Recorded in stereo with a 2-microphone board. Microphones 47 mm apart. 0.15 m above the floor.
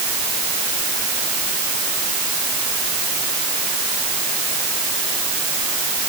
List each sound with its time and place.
Only background noise.